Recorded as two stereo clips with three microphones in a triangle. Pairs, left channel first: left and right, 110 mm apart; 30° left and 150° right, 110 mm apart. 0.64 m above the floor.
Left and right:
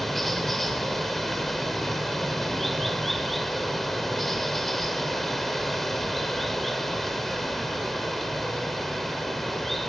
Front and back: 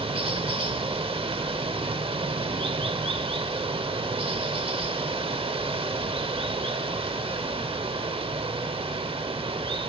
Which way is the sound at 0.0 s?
Straight behind.